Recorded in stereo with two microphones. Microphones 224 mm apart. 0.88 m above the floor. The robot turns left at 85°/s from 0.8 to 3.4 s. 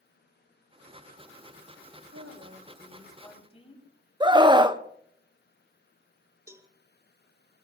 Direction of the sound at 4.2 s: 20° right (ahead or behind).